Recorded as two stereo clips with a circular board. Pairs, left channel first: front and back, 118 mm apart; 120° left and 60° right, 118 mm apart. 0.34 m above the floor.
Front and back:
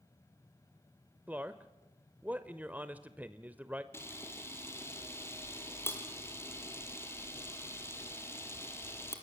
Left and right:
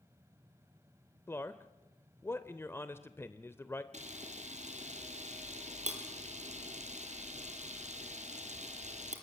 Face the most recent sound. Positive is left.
turn(degrees=-70)